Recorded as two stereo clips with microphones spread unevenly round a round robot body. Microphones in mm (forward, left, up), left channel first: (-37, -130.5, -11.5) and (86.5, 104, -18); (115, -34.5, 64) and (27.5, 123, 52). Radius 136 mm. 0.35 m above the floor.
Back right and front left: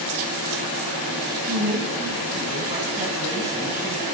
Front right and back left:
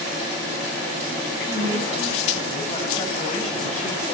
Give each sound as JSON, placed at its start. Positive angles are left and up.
{"t": 1.4, "sound": "a woman speaking", "azimuth_deg": 5, "distance_m": 4.5}